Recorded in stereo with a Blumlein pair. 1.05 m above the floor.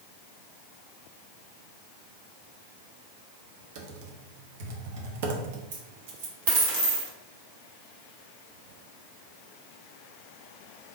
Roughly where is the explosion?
I don't hear an explosion.